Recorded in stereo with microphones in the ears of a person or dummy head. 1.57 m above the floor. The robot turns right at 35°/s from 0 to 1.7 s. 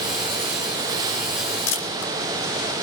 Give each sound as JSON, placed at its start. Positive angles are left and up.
{"t": 1.7, "sound": "a camera shutter", "side_deg": 80, "distance_m": 2.5}